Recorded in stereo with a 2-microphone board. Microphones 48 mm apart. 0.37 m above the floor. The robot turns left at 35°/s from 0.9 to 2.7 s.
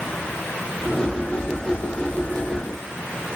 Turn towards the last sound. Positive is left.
No sound to turn to.